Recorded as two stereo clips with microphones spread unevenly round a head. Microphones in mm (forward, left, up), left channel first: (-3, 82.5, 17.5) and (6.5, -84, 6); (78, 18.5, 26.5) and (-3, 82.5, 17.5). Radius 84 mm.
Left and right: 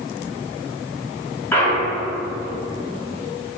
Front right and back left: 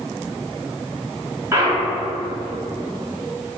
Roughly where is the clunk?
Behind.